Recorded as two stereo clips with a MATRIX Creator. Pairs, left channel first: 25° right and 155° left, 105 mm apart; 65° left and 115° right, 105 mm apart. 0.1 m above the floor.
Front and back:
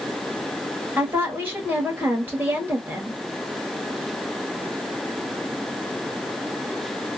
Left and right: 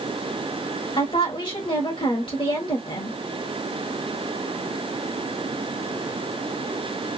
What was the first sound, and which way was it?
A woman speaking, 90° left.